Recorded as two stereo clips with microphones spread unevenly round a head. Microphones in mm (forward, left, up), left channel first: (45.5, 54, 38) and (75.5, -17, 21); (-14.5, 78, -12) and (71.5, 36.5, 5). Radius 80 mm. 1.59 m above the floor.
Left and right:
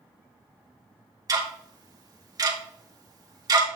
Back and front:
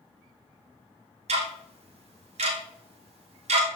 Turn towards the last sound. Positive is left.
turn(degrees=-30)